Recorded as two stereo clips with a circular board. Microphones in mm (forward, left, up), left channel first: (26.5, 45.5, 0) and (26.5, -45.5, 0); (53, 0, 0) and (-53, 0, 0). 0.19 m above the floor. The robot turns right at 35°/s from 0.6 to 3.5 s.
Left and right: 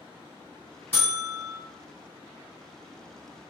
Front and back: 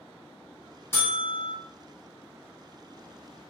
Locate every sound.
0.9 s a buzzer: 40° left, 1.5 m; by 1.5 s 60° left, 1.5 m